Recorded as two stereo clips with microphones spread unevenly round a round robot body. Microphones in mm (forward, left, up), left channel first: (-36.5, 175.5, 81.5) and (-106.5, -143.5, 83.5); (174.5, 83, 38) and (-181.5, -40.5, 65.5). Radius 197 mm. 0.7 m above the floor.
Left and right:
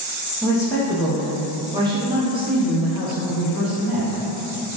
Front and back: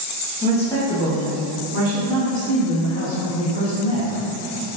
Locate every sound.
0.4 s a woman speaking: 10° left, 0.8 m; by 4.2 s 175° right, 2.5 m